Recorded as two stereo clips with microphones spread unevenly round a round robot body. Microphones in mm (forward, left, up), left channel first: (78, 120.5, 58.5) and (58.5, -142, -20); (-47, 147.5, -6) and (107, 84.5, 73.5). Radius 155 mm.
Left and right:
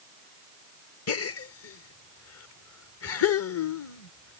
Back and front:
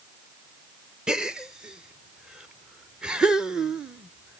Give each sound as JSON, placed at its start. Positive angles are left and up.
{"t": 1.1, "sound": "a gasp", "azimuth_deg": 100}